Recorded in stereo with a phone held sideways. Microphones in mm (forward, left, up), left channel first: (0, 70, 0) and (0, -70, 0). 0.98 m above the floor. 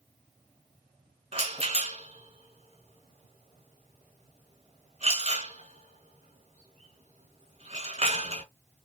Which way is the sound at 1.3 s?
45° right (ahead or behind).